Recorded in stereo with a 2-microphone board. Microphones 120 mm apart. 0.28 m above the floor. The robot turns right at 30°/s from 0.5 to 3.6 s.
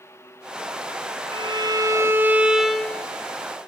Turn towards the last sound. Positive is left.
turn(degrees=25)